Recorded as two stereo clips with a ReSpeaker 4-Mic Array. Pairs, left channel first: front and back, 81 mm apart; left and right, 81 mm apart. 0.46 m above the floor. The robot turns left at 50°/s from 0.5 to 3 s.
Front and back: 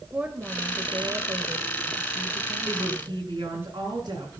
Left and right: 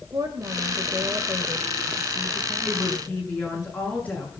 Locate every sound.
0.1 s a woman speaking: 110° right, 1.5 m; by 3.6 s 125° left, 1.5 m
2.6 s a woman speaking: straight behind, 7 m; by 4.3 s 160° left, 7 m